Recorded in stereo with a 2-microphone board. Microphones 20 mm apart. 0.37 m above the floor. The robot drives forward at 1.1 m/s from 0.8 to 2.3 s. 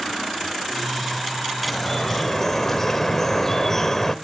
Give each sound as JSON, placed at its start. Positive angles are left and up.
{"t": 1.6, "sound": "dripping", "side_deg": 10, "distance_m": 1.4}